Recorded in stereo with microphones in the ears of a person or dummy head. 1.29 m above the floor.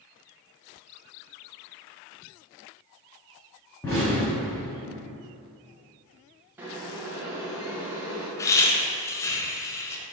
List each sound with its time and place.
3.8 s an explosion: 10° left (ahead or behind), 1.3 m
6.6 s boiling: 10° right (ahead or behind), 0.7 m
8.4 s laughter: 15° left (ahead or behind), 0.5 m